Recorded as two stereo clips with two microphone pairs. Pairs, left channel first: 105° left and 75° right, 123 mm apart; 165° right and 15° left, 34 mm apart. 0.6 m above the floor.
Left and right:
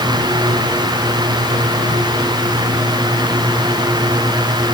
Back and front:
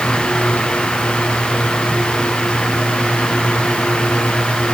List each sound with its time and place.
Only background noise.